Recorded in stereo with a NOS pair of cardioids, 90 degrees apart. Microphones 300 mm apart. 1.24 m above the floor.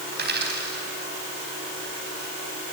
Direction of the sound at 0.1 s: 35° right.